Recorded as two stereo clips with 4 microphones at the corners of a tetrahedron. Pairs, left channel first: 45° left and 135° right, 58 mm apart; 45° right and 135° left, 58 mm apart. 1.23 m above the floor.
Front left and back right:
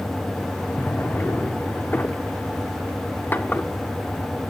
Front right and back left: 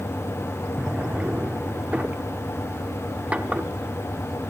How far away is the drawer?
About 1.0 m.